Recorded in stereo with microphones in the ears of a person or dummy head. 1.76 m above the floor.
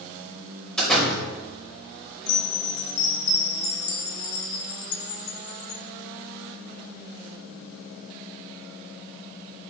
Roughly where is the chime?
Left.